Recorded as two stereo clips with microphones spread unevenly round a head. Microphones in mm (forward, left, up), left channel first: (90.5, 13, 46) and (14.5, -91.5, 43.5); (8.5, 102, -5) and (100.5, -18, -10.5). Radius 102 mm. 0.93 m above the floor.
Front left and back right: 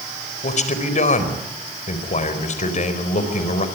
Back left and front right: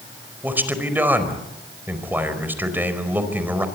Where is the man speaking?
25° left, 4.5 m.